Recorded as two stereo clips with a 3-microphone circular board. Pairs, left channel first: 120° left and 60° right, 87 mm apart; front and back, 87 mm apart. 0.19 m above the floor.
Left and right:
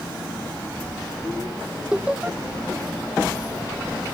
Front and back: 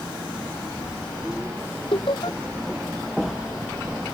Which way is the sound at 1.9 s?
15° left.